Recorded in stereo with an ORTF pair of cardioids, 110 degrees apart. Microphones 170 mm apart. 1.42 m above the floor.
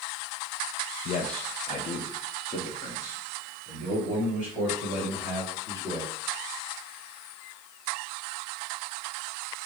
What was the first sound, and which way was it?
A man speaking, 60° left.